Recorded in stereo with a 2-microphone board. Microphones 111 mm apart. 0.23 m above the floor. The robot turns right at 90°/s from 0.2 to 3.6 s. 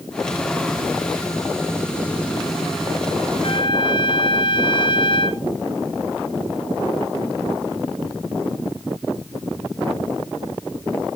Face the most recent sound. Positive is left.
turn(degrees=50)  # may be behind; listen again after turning